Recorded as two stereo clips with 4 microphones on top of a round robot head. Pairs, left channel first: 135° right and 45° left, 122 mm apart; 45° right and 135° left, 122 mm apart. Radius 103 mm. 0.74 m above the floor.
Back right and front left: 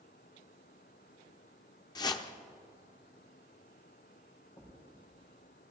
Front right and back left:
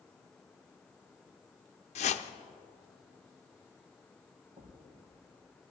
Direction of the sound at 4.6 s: 160° left.